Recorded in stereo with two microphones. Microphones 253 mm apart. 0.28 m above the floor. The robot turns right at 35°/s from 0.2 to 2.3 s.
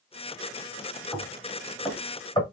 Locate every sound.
1.1 s knocking: 5° left (ahead or behind), 1.1 m; by 2.4 s 20° left (ahead or behind), 1.1 m